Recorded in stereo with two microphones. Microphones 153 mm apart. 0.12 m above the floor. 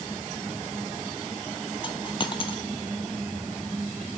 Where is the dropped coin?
35° left (ahead or behind), 0.7 m.